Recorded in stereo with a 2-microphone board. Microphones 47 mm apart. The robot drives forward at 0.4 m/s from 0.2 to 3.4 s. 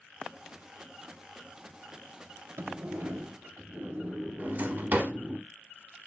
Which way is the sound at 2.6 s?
55° right (ahead or behind).